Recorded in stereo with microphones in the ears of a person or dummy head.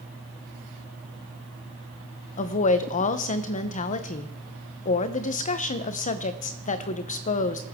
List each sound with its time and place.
2.4 s a woman speaking: 35° left (ahead or behind), 0.8 m